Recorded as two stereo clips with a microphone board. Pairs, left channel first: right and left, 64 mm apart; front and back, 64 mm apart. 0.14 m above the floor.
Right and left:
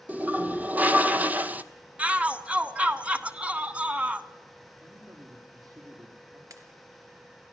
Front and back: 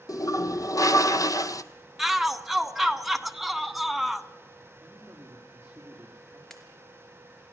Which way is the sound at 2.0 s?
95° left.